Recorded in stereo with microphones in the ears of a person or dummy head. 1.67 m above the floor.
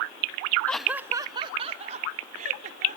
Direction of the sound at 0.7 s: 10° left (ahead or behind).